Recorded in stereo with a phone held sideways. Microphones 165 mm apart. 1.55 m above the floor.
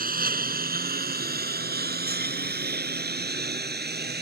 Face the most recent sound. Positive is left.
turn(degrees=-80)